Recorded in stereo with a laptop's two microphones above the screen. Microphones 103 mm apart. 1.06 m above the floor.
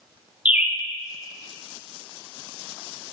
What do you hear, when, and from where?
0.5 s a bird: 15° right (ahead or behind), 0.8 m